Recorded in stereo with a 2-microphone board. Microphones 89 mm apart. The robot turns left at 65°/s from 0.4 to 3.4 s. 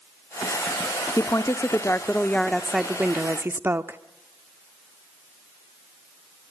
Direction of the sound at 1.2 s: 100° left.